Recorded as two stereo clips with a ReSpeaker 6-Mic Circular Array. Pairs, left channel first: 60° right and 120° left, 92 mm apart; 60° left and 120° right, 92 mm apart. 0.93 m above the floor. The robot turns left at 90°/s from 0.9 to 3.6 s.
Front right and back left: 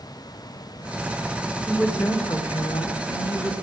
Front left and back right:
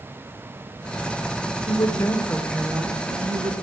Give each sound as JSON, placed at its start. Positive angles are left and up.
{"t": 1.7, "sound": "a woman speaking", "azimuth_deg": 35, "distance_m": 2.5}